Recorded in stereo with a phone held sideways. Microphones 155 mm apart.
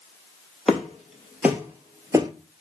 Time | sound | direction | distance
0.7 | footsteps | centre (ahead or behind) | 1.5 m